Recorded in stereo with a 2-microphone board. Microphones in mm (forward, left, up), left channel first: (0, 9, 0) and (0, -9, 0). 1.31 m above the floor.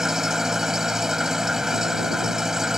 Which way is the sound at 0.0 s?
25° right (ahead or behind).